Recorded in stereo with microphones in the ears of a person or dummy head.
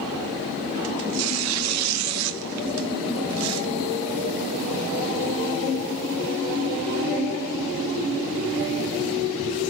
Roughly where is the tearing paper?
Right.